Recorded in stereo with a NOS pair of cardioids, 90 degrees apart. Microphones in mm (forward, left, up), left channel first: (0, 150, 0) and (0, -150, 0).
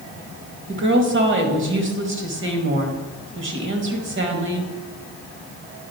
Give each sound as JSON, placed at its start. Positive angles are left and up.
{"t": 0.7, "sound": "a woman speaking", "azimuth_deg": -40, "distance_m": 2.0}